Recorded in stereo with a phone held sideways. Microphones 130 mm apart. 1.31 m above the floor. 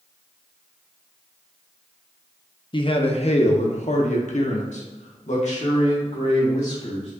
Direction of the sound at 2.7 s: 40° left (ahead or behind).